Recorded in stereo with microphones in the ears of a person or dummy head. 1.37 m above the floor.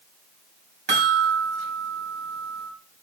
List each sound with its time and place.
0.9 s a chime: 60° right (ahead or behind), 3 m